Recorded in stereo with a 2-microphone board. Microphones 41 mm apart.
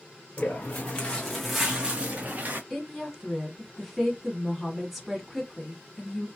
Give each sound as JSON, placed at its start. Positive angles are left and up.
{"t": 0.4, "sound": "footsteps", "side_deg": 45, "distance_m": 1.5}
{"t": 2.7, "sound": "a woman speaking", "side_deg": 0, "distance_m": 1.1}